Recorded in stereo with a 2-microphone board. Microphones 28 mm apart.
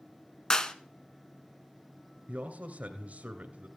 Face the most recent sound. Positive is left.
turn(degrees=-55)  # may be behind; listen again after turning